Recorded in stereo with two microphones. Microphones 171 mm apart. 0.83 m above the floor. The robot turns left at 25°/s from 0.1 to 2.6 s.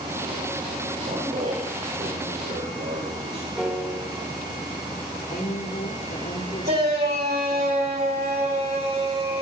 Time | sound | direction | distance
1.0 | a man speaking | 40° right | 4 m
3.6 | a piano | 5° right (ahead or behind) | 4 m
5.3 | a woman speaking | 55° left (ahead or behind) | 3 m
6.7 | a shout | 70° right (ahead or behind) | 7 m